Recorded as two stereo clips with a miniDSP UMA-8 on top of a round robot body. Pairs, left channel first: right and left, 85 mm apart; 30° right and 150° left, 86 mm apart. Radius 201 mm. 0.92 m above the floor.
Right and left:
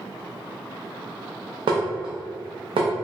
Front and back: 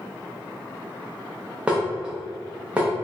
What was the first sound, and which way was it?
Dishes clattering, 75° left.